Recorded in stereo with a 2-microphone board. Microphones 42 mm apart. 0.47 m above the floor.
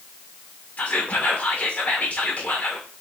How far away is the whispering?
About 1.2 m.